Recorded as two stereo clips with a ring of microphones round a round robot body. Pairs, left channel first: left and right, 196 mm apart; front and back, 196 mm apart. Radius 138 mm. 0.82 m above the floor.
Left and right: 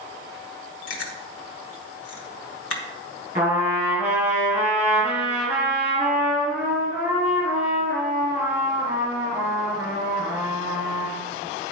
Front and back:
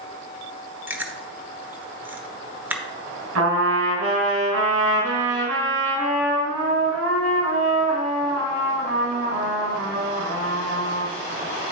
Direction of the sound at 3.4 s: 165° right.